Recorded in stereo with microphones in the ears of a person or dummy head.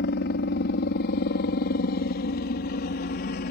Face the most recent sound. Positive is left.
turn(degrees=45)  # may be behind; listen again after turning